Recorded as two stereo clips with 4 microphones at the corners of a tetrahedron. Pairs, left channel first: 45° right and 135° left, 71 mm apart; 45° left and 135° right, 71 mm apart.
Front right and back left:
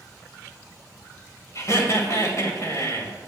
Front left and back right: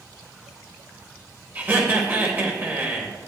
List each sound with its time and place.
1.6 s laughter: 80° right, 2 m